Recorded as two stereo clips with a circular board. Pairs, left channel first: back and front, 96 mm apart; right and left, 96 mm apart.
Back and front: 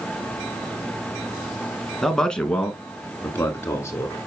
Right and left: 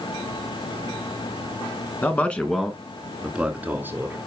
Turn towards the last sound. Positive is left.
turn(degrees=140)